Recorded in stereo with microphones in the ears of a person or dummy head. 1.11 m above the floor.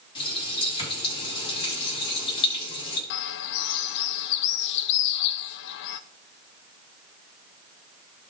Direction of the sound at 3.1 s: 60° left (ahead or behind).